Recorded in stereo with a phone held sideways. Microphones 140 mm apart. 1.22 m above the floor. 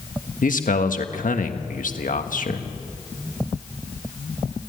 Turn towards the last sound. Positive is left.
turn(degrees=85)